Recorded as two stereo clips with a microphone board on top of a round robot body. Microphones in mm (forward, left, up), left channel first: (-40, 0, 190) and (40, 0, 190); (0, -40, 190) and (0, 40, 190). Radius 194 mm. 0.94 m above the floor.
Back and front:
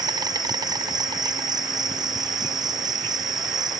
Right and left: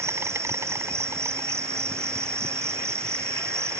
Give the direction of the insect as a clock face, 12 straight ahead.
11 o'clock.